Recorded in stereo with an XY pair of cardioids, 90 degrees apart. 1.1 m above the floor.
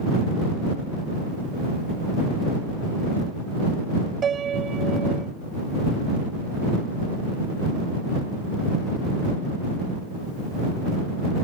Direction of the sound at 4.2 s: 55° right.